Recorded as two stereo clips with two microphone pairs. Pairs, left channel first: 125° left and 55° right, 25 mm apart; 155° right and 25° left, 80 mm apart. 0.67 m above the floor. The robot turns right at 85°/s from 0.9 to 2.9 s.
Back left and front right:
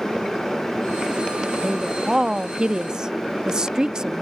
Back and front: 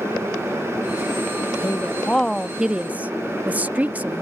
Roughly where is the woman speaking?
Behind right.